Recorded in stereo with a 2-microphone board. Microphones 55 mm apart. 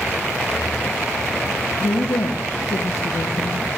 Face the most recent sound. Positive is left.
turn(degrees=65)  # may be behind; listen again after turning